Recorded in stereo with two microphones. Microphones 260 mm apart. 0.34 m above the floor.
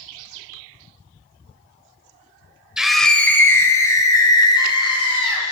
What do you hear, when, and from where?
2.8 s a scream: 5° right (ahead or behind), 1.0 m; by 5.4 s 20° left (ahead or behind), 3 m